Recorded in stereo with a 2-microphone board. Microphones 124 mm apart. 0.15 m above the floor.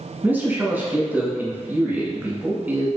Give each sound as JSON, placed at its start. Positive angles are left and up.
{"t": 0.2, "sound": "a man speaking", "side_deg": -15, "distance_m": 1.1}